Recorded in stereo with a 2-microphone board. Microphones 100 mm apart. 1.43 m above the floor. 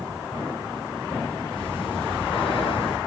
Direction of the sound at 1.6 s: 60° left (ahead or behind).